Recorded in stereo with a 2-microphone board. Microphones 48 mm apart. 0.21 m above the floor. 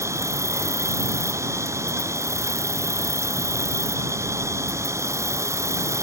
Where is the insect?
85° right.